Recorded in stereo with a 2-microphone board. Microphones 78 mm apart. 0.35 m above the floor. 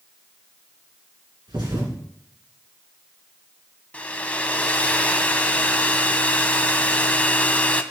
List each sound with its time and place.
1.5 s a thud: 75° right (ahead or behind), 2 m
3.9 s a hair dryer: 20° left (ahead or behind), 0.6 m